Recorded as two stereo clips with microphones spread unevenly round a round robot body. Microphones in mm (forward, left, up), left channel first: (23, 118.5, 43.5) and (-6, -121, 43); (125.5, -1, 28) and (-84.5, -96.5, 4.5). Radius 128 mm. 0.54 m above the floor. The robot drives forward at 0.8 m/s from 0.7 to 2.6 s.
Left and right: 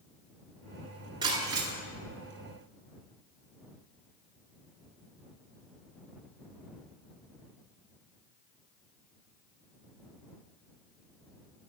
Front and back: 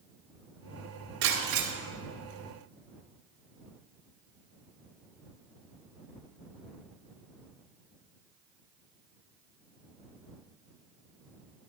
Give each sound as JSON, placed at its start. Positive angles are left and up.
{"t": 1.2, "sound": "breaking glass", "azimuth_deg": -170, "distance_m": 2.0}